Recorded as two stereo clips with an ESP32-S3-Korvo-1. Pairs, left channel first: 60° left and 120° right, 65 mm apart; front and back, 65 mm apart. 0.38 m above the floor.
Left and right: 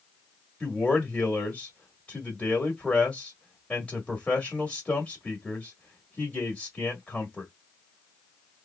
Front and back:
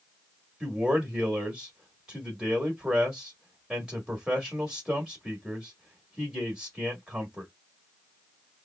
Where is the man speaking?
105° left, 1.2 m.